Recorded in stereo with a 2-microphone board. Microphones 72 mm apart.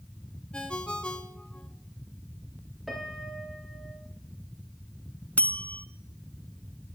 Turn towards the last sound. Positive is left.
turn(degrees=20)  # may be behind; listen again after turning